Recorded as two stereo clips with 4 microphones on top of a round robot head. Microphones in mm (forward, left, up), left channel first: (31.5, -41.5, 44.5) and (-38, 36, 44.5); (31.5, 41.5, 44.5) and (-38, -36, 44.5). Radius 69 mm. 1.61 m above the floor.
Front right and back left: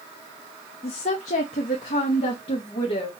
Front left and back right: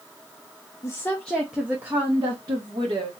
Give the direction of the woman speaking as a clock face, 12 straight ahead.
12 o'clock.